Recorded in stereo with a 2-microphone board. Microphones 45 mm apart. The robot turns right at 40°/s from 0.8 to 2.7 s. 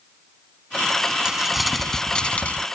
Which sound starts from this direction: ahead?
Crumpling, at 1.2 s.